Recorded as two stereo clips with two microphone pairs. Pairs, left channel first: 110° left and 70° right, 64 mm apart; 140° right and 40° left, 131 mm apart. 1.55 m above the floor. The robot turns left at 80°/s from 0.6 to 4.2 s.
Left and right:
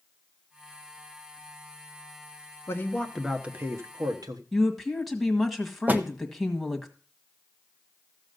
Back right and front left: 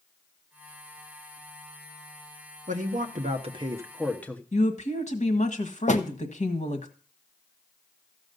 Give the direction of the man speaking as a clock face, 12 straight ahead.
10 o'clock.